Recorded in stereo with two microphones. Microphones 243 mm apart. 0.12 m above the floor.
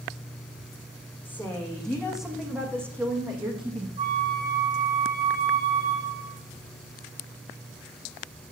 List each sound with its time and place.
1.2 s a woman speaking: 10° left (ahead or behind), 6 m; by 3.9 s 25° right (ahead or behind), 5 m
4.0 s a flute: 25° right (ahead or behind), 6.5 m